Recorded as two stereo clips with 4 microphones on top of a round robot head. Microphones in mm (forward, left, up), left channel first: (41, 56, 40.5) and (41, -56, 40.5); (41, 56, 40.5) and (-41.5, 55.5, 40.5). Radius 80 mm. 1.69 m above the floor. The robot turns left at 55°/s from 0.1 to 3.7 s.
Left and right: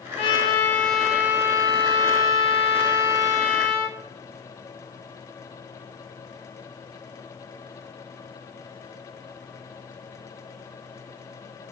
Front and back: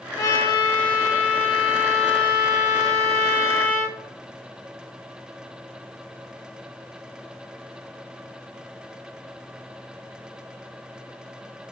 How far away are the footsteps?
No footsteps in this recording.